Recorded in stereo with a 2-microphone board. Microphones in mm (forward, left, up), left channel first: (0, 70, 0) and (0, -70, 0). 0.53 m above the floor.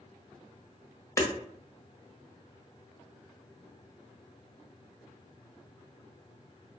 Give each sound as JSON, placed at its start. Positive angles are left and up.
{"t": 1.2, "sound": "hammering", "side_deg": 20, "distance_m": 0.5}